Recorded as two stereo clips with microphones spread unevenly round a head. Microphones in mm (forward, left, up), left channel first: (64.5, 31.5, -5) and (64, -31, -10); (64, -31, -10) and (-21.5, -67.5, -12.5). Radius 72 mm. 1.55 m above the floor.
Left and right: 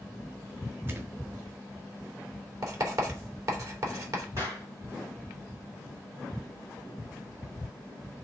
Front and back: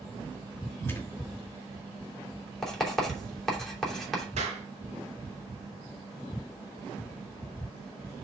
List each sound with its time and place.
0.9 s a thud: 40° right, 2.5 m
2.6 s writing: 60° right, 3 m
4.4 s a clap: 160° right, 1.8 m